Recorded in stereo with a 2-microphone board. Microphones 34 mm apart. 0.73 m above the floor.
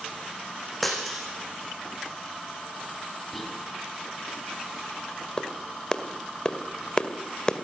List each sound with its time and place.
0.8 s breaking glass: 5° left (ahead or behind), 7 m
3.3 s whispering: 5° left (ahead or behind), 6.5 m
5.4 s a clap: 25° left (ahead or behind), 2 m